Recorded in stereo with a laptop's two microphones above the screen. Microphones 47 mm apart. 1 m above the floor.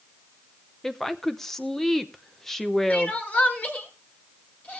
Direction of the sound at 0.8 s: 10° left (ahead or behind).